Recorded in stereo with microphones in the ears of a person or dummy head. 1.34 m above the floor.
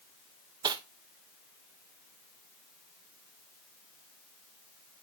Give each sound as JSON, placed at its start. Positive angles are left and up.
{"t": 0.6, "sound": "cutlery clinking", "side_deg": -25, "distance_m": 0.6}